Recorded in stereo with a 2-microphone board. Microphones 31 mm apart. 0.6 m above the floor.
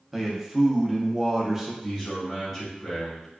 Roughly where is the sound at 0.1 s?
Centre.